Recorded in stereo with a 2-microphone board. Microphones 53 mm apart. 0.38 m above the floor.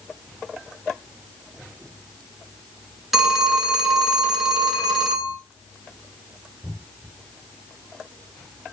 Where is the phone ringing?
5° right (ahead or behind), 0.7 m.